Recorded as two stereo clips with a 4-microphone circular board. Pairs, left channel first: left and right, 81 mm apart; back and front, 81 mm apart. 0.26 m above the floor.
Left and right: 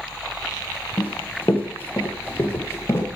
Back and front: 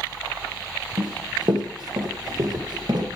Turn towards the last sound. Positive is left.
turn(degrees=30)